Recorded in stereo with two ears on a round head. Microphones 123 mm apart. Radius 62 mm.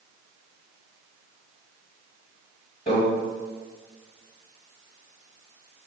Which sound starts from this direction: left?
A microwave, at 2.9 s.